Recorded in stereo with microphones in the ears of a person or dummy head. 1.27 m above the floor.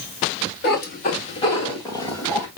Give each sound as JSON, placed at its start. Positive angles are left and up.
{"t": 0.6, "sound": "a cat meowing", "side_deg": 50, "distance_m": 1.1}